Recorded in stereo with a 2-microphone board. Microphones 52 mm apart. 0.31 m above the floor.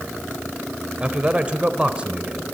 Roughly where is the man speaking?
Right.